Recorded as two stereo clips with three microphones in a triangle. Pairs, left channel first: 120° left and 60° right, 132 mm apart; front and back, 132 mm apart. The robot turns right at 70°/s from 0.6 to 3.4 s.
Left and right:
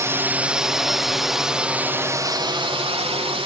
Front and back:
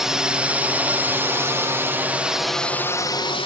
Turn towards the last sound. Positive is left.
turn(degrees=-30)